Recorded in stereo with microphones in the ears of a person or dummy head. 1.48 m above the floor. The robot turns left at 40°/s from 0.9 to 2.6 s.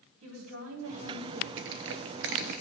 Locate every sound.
0.2 s a woman speaking: 80° right, 3.5 m
1.6 s crushing: 70° right (ahead or behind), 0.7 m; by 2.6 s 55° right (ahead or behind), 0.7 m